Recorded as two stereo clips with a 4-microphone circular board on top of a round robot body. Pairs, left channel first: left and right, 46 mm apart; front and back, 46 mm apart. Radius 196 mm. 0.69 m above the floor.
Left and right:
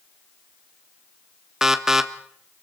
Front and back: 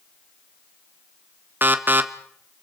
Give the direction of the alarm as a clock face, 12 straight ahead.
6 o'clock.